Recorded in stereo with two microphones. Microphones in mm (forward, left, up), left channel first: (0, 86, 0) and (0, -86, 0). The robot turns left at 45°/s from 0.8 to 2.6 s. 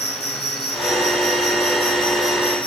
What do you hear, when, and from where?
0.0 s an insect: 110° left, 1.9 m; by 2.7 s 30° left, 1.9 m